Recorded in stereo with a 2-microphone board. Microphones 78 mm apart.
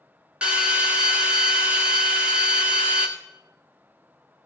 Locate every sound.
0.4 s a drill: 15° right (ahead or behind), 1.6 m